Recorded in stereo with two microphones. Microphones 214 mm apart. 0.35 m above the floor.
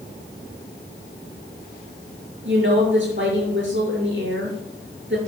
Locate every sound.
2.5 s a woman speaking: 60° right (ahead or behind), 6 m